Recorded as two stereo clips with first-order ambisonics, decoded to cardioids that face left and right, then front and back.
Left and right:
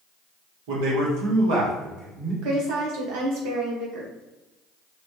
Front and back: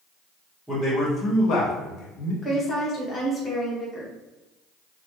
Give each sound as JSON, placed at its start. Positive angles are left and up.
{"t": 0.7, "sound": "a man speaking", "azimuth_deg": -90, "distance_m": 1.7}
{"t": 2.4, "sound": "a woman speaking", "azimuth_deg": -70, "distance_m": 1.3}